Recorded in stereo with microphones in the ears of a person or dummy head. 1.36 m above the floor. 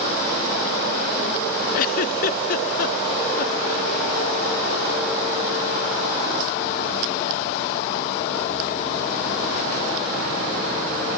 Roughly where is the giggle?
Left.